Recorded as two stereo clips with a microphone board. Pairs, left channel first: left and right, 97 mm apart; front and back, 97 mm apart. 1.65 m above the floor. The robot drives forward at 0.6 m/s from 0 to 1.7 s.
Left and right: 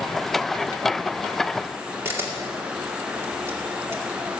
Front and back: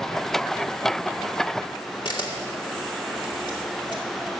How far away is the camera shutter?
About 2 m.